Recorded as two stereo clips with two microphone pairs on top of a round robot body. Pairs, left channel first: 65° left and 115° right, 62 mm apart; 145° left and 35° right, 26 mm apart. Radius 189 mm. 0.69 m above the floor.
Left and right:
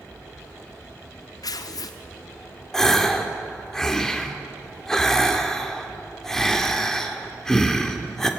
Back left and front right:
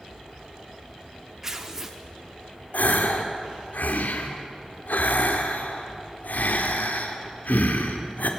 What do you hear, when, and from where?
1.4 s tearing paper: 45° left, 0.5 m
2.7 s a gasp: 145° left, 1.9 m